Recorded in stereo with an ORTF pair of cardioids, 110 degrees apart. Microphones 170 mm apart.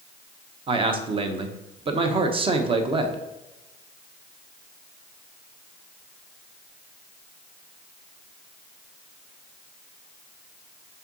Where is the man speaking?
30° right, 1.0 m.